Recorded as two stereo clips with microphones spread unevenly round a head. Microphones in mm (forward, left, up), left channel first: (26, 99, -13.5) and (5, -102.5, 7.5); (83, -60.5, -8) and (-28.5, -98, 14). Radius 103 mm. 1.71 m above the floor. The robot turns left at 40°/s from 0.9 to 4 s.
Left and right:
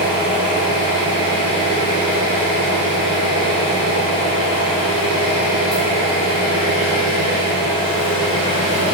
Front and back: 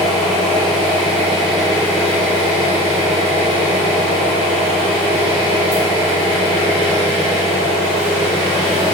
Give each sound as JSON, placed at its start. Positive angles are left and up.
{"t": 0.0, "sound": "an engine running", "azimuth_deg": -85, "distance_m": 1.1}